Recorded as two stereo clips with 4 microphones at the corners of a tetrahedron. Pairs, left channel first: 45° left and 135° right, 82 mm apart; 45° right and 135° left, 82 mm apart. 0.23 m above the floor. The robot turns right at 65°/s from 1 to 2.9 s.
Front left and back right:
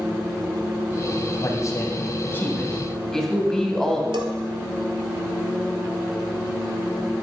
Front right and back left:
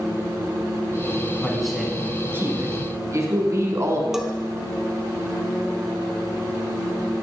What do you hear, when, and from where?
1.4 s a man speaking: 30° left, 1.9 m; by 4.0 s 125° left, 1.9 m
4.1 s a bell: 140° right, 1.0 m